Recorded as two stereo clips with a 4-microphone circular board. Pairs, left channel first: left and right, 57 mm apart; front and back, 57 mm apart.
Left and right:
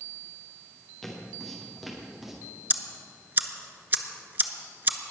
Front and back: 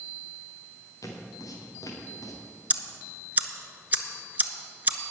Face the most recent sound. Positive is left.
turn(degrees=-130)